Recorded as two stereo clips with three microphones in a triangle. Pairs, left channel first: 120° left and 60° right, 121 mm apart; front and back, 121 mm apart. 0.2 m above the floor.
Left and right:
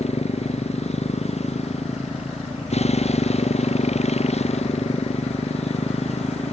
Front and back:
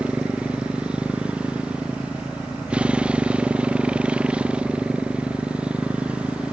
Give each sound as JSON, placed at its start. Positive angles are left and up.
{"t": 0.0, "sound": "a motorcycle", "azimuth_deg": 100}